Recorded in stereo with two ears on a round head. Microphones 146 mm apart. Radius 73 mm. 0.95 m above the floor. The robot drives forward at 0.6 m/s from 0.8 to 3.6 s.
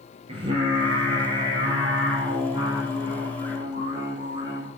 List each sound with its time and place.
0.3 s singing: 35° right (ahead or behind), 4.5 m; by 4.7 s 25° right (ahead or behind), 6 m